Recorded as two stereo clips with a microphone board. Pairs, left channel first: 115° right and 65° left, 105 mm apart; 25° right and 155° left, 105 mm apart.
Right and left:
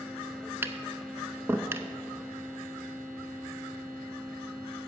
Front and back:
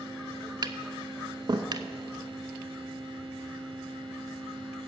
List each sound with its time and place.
0.6 s tapping: 125° left, 0.5 m